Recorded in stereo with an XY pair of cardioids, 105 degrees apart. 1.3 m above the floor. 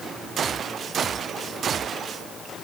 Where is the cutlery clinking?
I don't hear cutlery clinking.